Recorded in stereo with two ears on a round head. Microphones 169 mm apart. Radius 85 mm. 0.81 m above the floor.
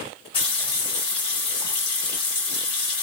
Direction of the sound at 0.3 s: 30° left (ahead or behind).